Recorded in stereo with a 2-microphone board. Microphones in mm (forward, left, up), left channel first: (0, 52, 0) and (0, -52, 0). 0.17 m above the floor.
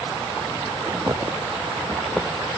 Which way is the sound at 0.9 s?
40° right (ahead or behind).